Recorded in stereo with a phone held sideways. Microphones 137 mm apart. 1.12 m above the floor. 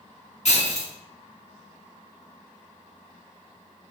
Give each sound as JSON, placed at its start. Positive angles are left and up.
{"t": 0.5, "sound": "breaking glass", "side_deg": 50, "distance_m": 1.3}